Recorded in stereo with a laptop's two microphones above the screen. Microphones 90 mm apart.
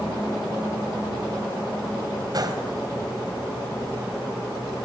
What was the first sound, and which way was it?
A gunshot, 50° right (ahead or behind).